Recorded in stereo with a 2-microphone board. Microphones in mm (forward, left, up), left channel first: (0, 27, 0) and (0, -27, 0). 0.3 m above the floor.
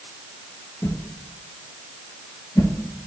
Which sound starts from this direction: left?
A whoosh, at 0.8 s.